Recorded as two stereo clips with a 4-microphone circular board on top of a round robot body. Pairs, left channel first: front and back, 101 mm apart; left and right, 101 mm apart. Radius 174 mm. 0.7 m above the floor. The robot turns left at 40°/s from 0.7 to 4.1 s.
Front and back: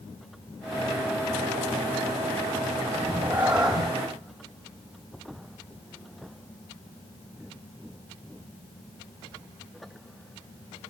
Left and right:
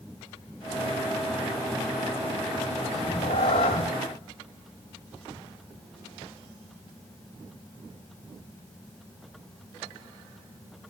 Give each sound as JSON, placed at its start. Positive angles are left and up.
{"t": 2.9, "sound": "a cat meowing", "azimuth_deg": 125, "distance_m": 0.6}